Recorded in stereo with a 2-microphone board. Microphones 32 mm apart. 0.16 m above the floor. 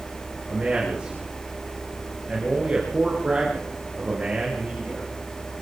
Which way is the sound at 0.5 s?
25° right (ahead or behind).